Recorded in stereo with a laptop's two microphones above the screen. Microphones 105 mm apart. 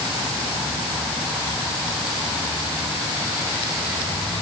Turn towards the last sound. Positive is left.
No sound to turn to.